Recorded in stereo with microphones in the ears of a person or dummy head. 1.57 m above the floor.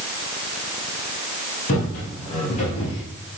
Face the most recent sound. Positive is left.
turn(degrees=25)  # may be behind; listen again after turning